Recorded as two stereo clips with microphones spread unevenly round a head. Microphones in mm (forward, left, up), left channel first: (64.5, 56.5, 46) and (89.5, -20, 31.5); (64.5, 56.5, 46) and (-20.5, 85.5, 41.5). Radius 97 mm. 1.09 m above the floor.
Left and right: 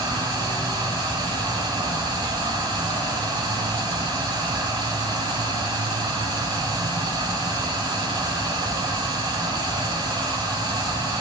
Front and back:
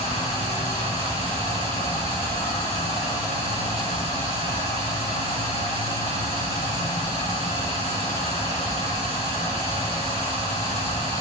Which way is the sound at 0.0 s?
50° right.